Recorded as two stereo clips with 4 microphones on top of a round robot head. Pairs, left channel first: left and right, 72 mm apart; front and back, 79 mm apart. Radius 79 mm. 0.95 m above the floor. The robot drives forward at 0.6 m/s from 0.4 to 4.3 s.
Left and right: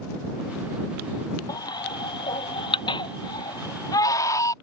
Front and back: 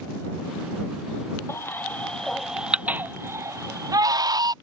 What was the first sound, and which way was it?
A baby crying, 60° left.